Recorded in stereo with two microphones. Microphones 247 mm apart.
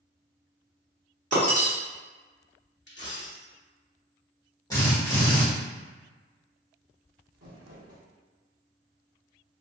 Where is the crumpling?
75° right (ahead or behind), 1.2 m.